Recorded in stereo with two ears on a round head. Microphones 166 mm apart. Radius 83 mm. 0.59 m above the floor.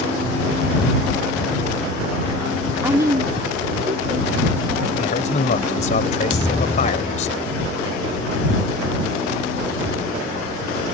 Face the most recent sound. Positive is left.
turn(degrees=30)  # may be behind; listen again after turning